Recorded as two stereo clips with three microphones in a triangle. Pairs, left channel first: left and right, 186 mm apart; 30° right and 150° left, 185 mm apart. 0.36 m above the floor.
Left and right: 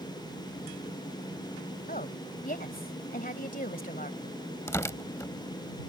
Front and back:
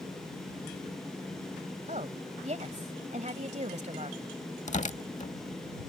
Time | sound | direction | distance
1.9 | a woman speaking | 110° left | ?
4.7 | tearing paper | 15° left | ?